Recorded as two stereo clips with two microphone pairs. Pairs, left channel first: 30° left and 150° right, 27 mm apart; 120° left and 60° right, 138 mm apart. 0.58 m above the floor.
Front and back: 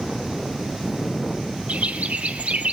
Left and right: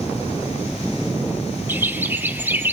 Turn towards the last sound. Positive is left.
turn(degrees=-135)